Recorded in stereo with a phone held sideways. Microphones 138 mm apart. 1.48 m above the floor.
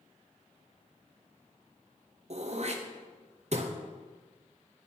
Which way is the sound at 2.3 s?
55° right (ahead or behind).